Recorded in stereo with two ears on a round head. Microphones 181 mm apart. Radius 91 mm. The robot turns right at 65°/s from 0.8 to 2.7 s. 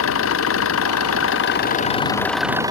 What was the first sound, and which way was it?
An engine running, 75° left.